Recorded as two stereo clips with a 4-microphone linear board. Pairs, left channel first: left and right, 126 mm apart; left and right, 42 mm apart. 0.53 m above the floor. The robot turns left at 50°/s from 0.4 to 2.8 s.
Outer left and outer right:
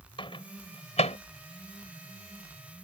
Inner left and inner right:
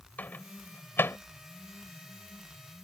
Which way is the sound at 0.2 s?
45° left (ahead or behind).